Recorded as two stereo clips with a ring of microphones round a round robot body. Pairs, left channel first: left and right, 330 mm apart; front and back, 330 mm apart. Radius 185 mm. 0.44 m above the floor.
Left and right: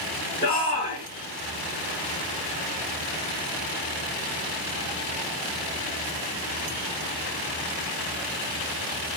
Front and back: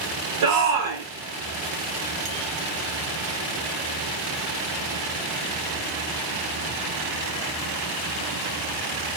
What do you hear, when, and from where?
0.4 s a shout: 165° left, 5.5 m